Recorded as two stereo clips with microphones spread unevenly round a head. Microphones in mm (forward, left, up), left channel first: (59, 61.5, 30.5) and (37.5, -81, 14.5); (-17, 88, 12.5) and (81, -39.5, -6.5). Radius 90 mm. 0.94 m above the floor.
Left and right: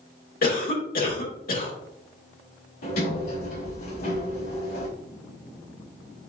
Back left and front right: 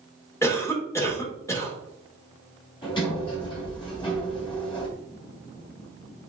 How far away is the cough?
About 2.5 m.